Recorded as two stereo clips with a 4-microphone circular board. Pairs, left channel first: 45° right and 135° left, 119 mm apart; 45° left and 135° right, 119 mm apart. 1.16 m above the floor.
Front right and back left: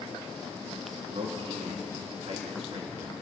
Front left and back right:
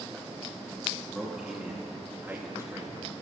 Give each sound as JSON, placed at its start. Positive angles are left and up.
{"t": 1.1, "sound": "a man speaking", "azimuth_deg": 135, "distance_m": 3.0}